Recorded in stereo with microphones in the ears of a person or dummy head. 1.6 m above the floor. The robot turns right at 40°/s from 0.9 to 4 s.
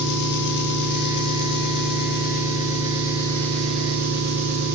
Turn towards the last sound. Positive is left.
turn(degrees=-175)